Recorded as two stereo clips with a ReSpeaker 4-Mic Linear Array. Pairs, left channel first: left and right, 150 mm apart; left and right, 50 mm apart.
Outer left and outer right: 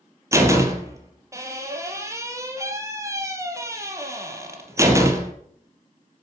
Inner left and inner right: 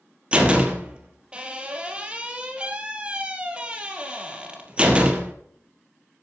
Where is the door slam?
20° right (ahead or behind), 3.5 m.